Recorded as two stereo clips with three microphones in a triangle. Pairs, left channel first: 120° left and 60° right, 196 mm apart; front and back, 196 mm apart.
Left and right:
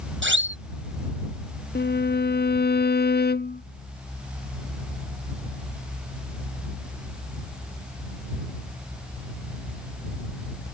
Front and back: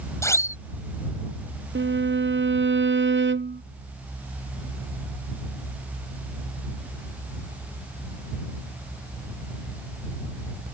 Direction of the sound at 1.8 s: 155° left.